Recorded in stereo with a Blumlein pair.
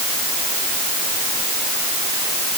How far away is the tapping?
I don't hear tapping.